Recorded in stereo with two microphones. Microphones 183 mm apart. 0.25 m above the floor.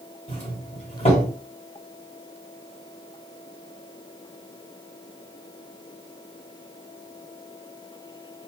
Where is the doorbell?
35° left (ahead or behind), 2.5 m.